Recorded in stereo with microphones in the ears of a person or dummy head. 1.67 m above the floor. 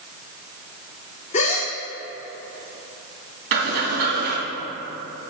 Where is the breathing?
55° right (ahead or behind), 2.5 m.